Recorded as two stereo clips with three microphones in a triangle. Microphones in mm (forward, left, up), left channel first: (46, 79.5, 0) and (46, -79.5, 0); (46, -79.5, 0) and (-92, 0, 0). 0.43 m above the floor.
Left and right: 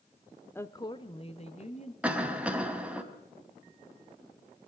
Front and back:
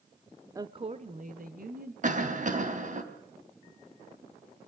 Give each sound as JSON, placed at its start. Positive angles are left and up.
{"t": 0.6, "sound": "a woman speaking", "azimuth_deg": 140, "distance_m": 0.9}
{"t": 2.0, "sound": "a cough", "azimuth_deg": -170, "distance_m": 3.5}